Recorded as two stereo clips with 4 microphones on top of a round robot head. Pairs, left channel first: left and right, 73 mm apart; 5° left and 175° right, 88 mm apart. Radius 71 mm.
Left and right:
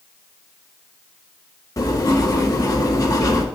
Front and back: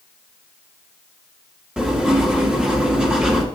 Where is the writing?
105° left, 1.6 m.